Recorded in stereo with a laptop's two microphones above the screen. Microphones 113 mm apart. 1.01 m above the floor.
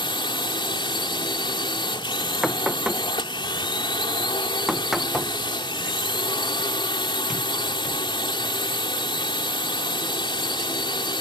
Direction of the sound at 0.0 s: 45° left (ahead or behind).